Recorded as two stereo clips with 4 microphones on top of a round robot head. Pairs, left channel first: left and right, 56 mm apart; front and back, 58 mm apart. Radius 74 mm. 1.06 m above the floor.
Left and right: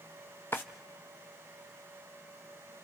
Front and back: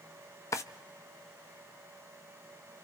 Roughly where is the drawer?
Ahead left.